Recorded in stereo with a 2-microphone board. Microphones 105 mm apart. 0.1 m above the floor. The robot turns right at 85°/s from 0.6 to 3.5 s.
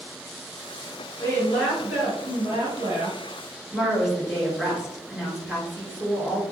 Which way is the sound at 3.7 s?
5° right (ahead or behind).